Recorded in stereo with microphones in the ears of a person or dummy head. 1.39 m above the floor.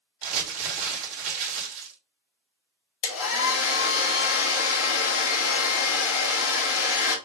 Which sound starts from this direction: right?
Crumpling, at 0.2 s.